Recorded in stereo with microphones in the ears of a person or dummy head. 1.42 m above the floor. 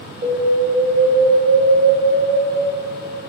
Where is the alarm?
25° right (ahead or behind), 2.5 m.